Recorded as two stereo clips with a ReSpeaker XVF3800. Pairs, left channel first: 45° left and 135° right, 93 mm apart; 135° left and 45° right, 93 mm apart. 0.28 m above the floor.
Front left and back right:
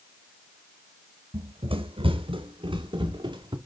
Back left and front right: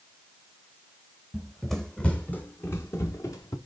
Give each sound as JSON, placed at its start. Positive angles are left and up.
{"t": 1.3, "sound": "running footsteps", "azimuth_deg": -125, "distance_m": 1.2}